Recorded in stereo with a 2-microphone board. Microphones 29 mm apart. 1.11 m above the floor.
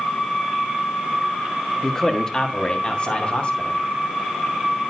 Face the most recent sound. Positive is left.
turn(degrees=45)  # may be behind; listen again after turning